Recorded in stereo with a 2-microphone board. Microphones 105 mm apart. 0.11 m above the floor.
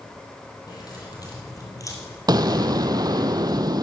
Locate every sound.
0.7 s keys jangling: 40° left (ahead or behind), 3 m; by 2.2 s 30° left (ahead or behind), 1.6 m
2.3 s an explosion: 40° right (ahead or behind), 0.6 m